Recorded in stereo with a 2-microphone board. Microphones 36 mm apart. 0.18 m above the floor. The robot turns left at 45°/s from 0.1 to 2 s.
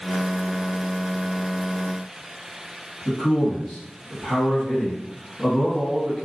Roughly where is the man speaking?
Left.